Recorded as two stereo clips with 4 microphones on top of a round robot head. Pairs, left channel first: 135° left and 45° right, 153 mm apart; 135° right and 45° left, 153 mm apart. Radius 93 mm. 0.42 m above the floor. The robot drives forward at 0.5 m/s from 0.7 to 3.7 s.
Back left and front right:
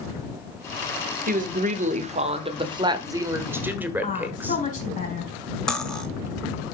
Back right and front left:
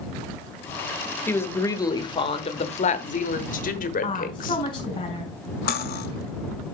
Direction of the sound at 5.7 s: 140° right.